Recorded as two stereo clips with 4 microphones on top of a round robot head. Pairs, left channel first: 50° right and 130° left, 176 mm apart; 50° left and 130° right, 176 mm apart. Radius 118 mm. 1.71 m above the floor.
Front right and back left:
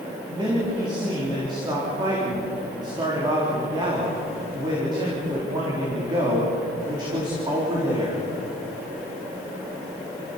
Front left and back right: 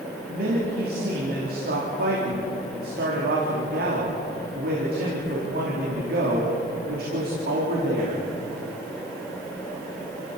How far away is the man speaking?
About 4 m.